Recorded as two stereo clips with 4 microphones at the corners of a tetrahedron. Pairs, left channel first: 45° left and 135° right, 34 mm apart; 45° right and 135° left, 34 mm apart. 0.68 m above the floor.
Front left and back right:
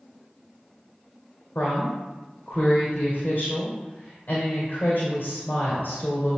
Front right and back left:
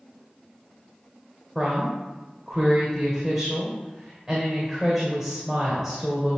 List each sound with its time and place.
1.6 s a woman speaking: 65° left, 2.0 m